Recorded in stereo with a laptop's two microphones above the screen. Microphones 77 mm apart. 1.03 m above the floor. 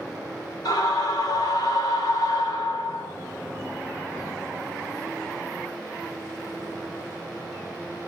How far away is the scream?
About 3 m.